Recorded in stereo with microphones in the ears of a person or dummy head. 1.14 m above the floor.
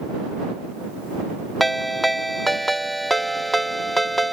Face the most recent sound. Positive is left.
turn(degrees=5)  # may be behind; listen again after turning